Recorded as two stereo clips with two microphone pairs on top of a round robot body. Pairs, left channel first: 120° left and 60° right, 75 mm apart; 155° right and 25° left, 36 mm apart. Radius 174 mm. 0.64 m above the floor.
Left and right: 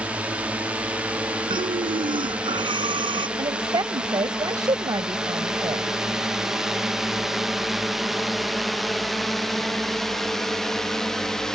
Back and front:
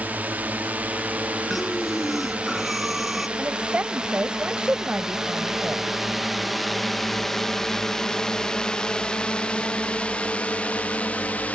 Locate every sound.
0.0 s a drone: 5° left; by 11.6 s 160° right
1.5 s breathing: 60° right
3.4 s a woman speaking: 25° right